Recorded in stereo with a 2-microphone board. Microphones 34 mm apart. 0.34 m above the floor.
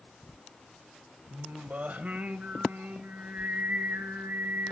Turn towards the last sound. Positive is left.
turn(degrees=-60)  # may be behind; listen again after turning